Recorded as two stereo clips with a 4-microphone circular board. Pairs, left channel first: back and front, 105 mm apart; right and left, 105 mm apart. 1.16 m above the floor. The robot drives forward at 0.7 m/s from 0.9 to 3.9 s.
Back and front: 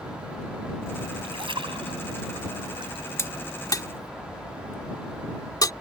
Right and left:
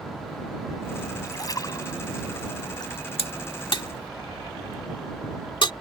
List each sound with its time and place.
1.2 s a splash: 35° right; by 3.0 s 40° right
3.2 s a crack: 115° right; by 5.7 s 130° right